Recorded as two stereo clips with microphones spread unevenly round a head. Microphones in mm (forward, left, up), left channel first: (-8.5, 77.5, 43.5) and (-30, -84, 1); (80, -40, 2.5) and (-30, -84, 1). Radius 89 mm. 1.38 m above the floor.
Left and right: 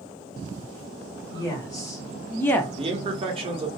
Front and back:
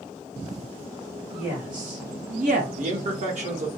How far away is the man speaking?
About 0.8 m.